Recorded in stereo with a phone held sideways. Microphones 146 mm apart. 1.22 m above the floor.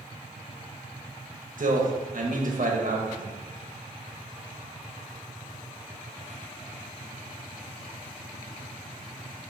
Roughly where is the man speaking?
Right.